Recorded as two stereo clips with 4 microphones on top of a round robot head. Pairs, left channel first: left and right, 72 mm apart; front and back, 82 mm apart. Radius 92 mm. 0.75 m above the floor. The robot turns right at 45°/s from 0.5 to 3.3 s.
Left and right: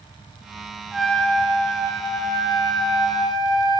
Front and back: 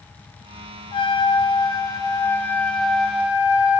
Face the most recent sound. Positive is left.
turn(degrees=105)